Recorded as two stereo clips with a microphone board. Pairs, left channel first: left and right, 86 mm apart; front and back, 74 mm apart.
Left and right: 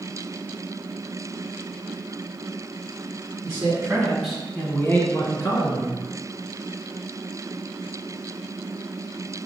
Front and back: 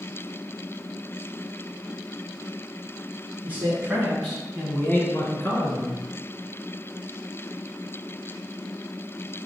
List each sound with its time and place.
3.4 s a man speaking: 130° right, 1.2 m; by 6.0 s 45° left, 1.9 m